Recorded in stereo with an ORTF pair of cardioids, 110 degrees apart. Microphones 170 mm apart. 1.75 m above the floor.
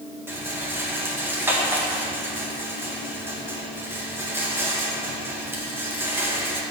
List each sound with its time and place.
0.3 s a rattle: 10° right, 2.5 m